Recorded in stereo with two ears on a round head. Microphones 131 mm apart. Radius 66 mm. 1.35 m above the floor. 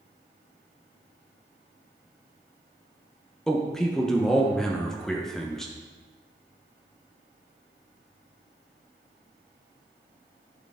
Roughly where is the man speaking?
Centre.